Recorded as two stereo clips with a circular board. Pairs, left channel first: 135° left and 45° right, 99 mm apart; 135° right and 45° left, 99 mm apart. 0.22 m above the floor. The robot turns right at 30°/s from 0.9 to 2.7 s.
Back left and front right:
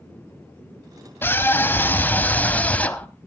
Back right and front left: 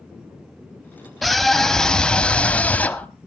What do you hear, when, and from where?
1.2 s a scream: 135° left, 1.1 m; by 3.1 s straight behind, 1.1 m